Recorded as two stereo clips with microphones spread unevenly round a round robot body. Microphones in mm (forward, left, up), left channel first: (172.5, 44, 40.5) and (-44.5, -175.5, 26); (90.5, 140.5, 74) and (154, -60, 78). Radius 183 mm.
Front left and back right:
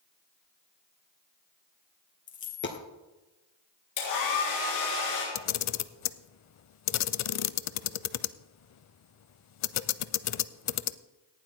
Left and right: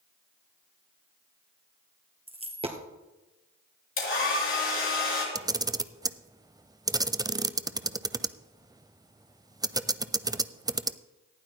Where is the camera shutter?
5° left, 0.5 m.